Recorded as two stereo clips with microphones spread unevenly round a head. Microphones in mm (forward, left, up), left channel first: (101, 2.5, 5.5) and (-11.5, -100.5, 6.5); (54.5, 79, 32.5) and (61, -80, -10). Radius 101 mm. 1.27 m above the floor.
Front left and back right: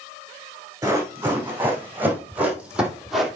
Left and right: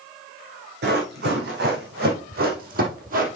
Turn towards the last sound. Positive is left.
turn(degrees=-50)